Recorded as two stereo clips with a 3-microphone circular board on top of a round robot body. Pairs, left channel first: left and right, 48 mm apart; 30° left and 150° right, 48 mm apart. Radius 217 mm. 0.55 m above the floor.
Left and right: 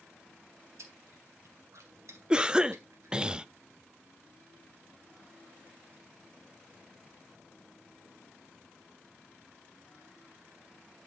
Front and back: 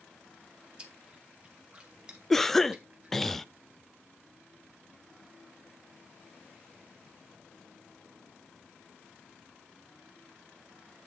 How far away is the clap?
No clap in this recording.